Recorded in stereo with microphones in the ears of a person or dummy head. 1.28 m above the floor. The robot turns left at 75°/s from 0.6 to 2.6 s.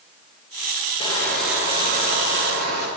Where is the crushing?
30° left, 9.5 m; by 2.9 s 90° right, 9.5 m.